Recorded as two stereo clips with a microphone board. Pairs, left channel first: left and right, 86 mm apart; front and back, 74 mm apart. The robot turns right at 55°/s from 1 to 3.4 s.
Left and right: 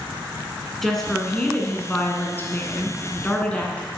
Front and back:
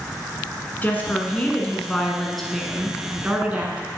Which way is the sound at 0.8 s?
10° left.